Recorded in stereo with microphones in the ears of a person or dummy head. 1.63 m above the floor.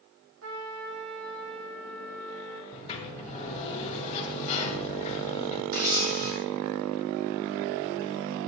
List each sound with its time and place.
0.4 s a trumpet: 70° right (ahead or behind), 1.6 m
2.7 s a sliding door: 35° left (ahead or behind), 1.5 m
5.7 s a camera shutter: 45° right (ahead or behind), 2 m